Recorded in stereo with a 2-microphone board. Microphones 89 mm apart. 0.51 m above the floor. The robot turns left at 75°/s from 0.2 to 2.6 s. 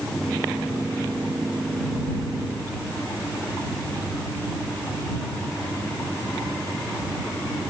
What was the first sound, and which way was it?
Only background noise.